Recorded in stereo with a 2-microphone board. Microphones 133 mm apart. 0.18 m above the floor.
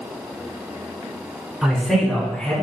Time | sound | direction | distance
1.6 | a man speaking | 5° right (ahead or behind) | 1.0 m